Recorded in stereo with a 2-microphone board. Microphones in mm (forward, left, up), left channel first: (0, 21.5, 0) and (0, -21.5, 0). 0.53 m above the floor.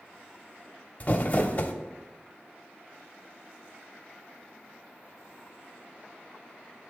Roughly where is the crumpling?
Left.